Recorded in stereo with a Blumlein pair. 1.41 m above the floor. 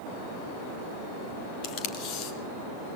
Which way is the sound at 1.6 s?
40° left.